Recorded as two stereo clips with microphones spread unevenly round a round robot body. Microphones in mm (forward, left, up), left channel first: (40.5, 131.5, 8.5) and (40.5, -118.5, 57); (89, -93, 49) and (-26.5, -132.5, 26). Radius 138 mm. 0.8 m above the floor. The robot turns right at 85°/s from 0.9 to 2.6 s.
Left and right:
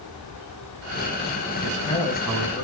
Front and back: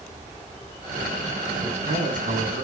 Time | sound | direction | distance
1.6 | a man speaking | 130° left | 8 m